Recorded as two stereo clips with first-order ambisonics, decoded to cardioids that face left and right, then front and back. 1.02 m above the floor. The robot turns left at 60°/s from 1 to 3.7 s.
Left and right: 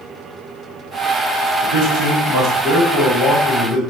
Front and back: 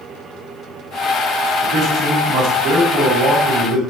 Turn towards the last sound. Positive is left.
turn(degrees=140)